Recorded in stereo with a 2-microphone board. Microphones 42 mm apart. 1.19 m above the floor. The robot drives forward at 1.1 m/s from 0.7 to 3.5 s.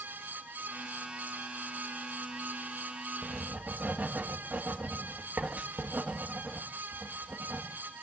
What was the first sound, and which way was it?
Writing, 45° right (ahead or behind).